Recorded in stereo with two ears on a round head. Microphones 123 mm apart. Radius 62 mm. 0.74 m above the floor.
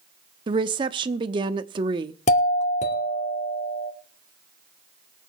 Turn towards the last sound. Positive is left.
turn(degrees=60)  # may be behind; listen again after turning